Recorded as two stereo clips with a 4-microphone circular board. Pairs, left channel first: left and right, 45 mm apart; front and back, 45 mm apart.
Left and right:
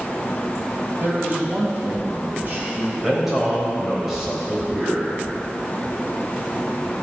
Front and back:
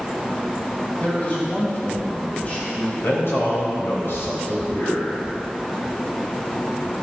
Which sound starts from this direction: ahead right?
A man speaking, at 1.0 s.